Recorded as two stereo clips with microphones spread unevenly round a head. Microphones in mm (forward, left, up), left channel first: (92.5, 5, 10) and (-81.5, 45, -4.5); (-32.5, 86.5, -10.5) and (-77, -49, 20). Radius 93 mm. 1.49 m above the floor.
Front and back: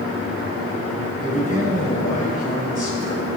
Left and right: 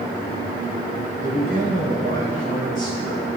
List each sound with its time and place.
1.2 s a man speaking: 65° right, 6.5 m